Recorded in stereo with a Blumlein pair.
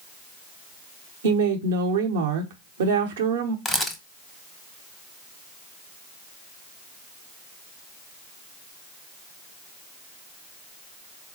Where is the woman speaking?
60° right, 0.9 m.